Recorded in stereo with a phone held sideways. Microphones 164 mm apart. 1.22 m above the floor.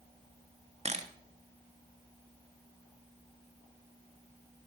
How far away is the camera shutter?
About 1.3 m.